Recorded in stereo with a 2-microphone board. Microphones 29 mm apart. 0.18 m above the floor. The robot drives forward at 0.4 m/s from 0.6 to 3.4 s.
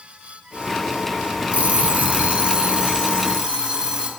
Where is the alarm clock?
45° right (ahead or behind), 0.6 m; by 4.1 s 25° right (ahead or behind), 1.0 m.